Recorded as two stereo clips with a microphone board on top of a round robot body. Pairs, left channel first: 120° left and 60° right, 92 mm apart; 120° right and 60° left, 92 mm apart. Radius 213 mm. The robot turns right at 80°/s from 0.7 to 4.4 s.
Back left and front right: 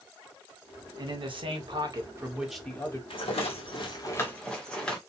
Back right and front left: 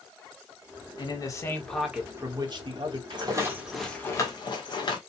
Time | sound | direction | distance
1.0 | a man speaking | 95° right | 1.9 m
3.1 | a rattle | 95° left | 1.8 m